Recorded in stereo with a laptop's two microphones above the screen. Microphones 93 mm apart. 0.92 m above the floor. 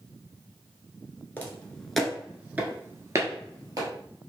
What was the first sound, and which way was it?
Footsteps, 20° left (ahead or behind).